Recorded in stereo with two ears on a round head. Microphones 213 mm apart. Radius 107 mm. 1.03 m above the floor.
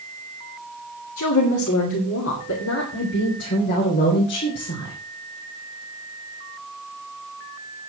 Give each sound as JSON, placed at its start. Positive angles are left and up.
{"t": 1.2, "sound": "a woman speaking", "side_deg": 70, "distance_m": 2.0}